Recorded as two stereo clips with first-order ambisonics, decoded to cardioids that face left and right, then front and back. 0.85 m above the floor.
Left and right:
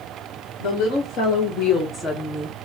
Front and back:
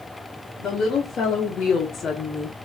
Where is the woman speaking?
50° left, 1.6 m; by 2.6 s 45° right, 0.8 m.